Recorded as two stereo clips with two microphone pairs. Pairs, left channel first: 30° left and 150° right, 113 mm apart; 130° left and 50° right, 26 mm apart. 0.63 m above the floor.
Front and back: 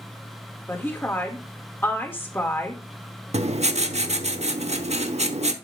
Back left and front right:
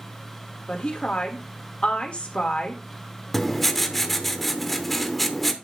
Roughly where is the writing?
Behind right.